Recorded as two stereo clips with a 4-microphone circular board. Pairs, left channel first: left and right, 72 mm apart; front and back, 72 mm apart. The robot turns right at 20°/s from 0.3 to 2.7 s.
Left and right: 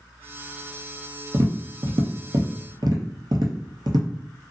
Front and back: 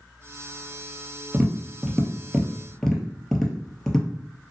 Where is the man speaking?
I don't hear a man speaking.